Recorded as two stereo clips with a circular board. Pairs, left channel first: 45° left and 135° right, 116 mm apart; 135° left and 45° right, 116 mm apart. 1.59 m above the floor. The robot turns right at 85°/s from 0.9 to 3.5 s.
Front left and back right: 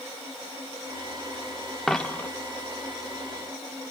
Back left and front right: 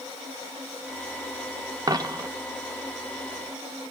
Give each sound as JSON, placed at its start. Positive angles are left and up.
{"t": 1.9, "sound": "a dropped coin", "azimuth_deg": -45, "distance_m": 1.0}